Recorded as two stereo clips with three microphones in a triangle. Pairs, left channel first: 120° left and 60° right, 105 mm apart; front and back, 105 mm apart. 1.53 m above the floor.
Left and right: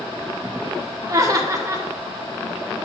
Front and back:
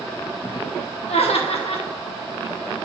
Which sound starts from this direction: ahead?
Laughter, at 1.1 s.